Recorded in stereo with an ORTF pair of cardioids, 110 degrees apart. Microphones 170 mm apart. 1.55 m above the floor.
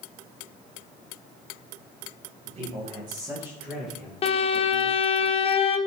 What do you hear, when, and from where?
2.5 s a man speaking: 45° right, 2 m; by 5.2 s 20° left, 3 m
4.2 s a violin: 35° left, 0.7 m